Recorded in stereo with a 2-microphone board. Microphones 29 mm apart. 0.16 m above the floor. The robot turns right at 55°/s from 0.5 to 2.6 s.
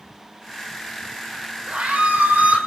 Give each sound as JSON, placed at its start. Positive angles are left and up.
{"t": 1.7, "sound": "a scream", "azimuth_deg": -135, "distance_m": 6.0}